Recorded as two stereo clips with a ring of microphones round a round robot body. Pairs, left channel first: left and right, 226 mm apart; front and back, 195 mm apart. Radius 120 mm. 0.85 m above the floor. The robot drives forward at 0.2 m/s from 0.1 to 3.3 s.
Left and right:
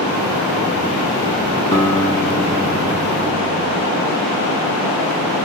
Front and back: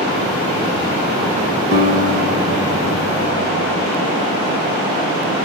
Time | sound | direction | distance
1.7 | a guitar | 160° left | 1.7 m